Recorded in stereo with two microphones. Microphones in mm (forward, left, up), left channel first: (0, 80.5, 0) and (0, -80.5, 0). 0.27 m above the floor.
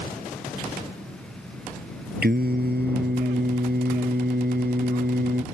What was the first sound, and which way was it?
Singing, 75° right (ahead or behind).